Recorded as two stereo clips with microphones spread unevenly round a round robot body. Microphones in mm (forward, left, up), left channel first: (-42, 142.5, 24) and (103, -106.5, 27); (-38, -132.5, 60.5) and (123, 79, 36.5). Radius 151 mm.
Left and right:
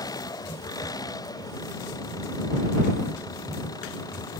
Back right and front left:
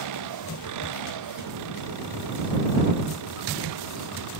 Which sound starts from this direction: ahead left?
An engine running, at 0.0 s.